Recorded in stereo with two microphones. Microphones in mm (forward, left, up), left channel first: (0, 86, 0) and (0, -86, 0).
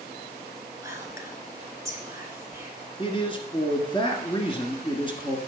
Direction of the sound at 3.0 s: 30° left (ahead or behind).